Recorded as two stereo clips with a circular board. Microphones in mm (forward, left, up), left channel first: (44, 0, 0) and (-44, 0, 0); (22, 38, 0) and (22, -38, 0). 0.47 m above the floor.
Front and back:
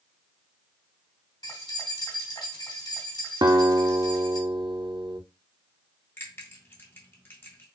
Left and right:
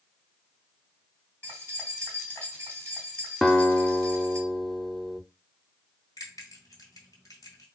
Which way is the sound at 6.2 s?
60° left.